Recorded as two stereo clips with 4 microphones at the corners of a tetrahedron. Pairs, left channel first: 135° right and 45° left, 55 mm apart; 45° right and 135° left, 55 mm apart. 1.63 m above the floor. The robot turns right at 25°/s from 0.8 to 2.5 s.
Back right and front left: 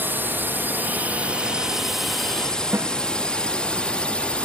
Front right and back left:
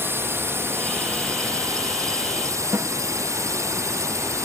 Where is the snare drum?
90° left.